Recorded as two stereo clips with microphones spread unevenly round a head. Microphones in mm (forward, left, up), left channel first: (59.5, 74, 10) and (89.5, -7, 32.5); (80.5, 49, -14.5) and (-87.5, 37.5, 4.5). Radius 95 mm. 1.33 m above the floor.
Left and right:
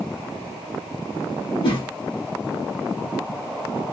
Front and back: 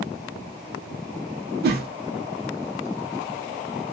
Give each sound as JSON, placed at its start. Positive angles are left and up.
{"t": 1.6, "sound": "a whoosh", "azimuth_deg": 155, "distance_m": 0.8}